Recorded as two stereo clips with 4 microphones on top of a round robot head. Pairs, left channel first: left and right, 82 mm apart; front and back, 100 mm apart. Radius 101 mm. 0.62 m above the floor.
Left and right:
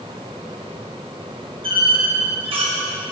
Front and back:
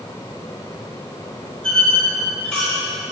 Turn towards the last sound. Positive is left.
turn(degrees=-85)